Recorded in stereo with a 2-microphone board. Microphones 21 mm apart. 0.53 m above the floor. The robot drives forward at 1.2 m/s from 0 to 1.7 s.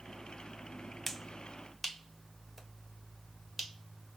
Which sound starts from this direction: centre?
A finger snap, at 1.1 s.